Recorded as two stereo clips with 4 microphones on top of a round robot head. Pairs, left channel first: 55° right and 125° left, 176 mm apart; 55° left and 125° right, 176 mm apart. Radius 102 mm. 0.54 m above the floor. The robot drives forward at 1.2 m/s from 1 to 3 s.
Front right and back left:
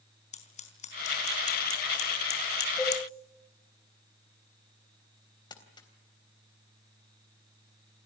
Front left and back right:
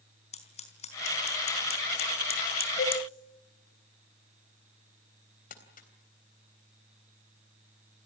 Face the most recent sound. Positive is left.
turn(degrees=15)